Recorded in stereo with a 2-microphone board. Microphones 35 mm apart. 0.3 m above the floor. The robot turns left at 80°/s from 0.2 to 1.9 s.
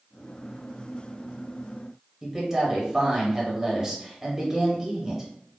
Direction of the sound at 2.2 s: 15° right (ahead or behind).